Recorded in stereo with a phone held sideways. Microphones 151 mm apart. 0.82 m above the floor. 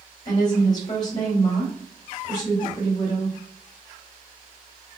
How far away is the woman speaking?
About 2.0 m.